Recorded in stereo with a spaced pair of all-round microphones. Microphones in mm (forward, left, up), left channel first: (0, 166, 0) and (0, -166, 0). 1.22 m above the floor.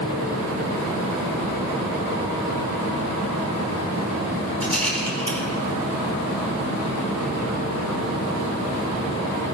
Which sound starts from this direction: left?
A rattle, at 4.6 s.